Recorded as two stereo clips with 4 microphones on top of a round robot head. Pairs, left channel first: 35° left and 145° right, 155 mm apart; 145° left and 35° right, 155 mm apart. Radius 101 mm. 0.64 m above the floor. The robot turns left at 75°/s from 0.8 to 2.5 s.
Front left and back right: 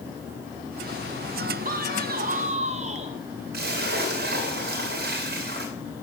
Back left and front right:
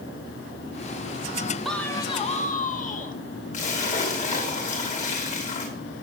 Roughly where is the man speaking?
Behind right.